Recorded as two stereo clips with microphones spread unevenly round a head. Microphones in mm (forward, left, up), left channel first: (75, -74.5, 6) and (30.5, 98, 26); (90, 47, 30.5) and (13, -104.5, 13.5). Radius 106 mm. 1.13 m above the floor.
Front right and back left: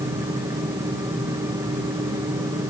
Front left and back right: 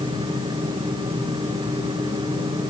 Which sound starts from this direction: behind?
A fan, at 0.0 s.